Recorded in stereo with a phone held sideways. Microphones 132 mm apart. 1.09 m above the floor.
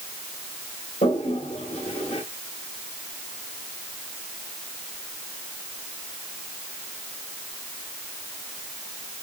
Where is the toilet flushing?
55° left (ahead or behind), 2.0 m.